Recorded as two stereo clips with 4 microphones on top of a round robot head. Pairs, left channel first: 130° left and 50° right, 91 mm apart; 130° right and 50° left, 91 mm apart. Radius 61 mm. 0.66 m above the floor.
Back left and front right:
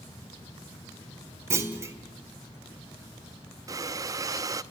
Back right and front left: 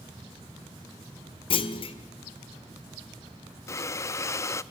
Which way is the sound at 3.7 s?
85° right.